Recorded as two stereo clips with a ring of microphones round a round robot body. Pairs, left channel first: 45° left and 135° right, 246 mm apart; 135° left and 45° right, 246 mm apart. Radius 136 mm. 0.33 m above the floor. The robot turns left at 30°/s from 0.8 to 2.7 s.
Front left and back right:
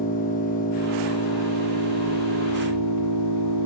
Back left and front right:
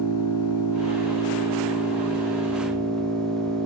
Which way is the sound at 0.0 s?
105° left.